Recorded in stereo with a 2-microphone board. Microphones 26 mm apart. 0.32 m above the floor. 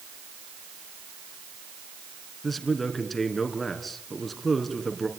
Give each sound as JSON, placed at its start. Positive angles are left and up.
{"t": 2.4, "sound": "a man speaking", "side_deg": 5, "distance_m": 3.5}